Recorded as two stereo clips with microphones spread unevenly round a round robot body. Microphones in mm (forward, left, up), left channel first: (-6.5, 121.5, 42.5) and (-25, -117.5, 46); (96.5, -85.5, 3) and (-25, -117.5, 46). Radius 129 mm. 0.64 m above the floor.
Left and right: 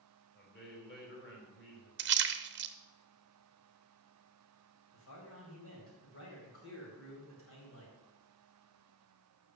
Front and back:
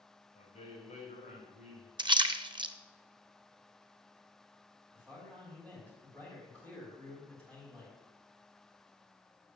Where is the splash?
100° right, 0.8 m.